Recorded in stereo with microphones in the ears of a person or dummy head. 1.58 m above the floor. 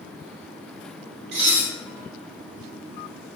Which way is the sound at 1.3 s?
60° right (ahead or behind).